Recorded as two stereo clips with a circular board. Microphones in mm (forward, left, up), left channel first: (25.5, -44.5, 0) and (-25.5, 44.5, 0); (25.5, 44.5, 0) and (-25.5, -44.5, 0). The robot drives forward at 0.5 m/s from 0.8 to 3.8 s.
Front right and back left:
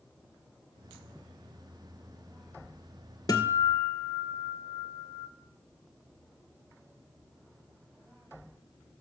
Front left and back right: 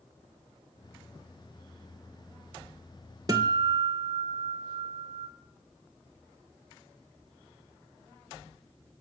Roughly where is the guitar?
Right.